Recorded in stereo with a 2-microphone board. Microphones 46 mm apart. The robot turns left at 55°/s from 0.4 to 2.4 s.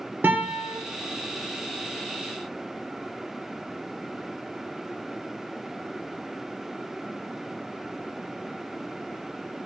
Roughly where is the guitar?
Right.